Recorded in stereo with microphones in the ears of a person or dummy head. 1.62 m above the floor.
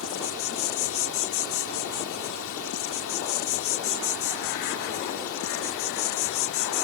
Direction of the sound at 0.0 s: 75° left (ahead or behind).